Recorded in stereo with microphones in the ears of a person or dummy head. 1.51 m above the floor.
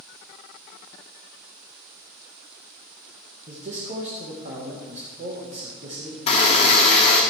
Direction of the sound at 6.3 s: 40° left (ahead or behind).